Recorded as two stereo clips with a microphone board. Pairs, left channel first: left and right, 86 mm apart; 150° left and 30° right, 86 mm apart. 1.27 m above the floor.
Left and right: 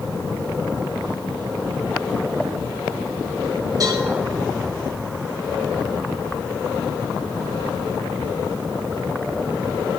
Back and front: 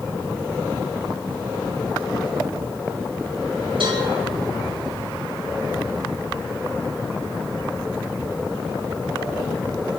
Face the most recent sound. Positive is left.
turn(degrees=-45)